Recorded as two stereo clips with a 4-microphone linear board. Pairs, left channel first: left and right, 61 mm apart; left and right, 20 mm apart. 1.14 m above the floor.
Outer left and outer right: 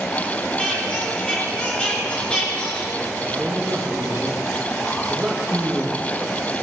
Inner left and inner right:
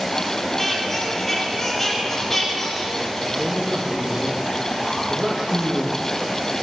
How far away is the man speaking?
About 1.2 m.